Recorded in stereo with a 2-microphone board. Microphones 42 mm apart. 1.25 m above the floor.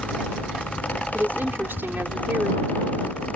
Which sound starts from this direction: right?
A woman speaking, at 1.1 s.